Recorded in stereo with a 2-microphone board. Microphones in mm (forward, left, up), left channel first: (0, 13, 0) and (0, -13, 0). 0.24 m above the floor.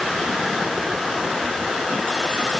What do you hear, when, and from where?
Only background noise.